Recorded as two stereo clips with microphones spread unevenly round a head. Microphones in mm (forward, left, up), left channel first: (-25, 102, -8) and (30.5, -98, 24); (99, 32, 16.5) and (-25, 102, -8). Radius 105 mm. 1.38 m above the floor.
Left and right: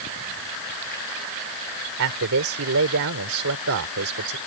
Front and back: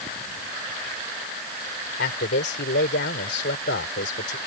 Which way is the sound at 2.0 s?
50° right.